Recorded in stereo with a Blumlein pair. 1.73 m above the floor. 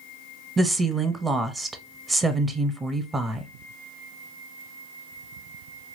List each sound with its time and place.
0.6 s a woman speaking: 10° right, 0.8 m